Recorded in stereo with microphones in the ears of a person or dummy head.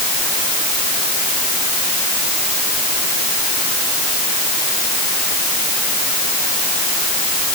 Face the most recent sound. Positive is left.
No sound to turn to.